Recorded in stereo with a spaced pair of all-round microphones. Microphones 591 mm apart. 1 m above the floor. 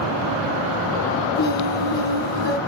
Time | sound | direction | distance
1.4 | singing | 45° left (ahead or behind) | 3 m